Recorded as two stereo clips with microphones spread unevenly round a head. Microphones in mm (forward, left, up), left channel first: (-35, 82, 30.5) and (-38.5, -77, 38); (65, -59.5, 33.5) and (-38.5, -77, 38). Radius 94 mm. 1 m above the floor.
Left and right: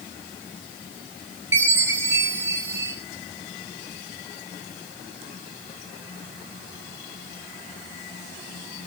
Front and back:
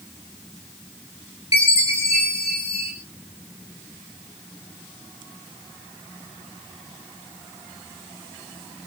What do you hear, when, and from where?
1.5 s a chime: 15° right, 5.5 m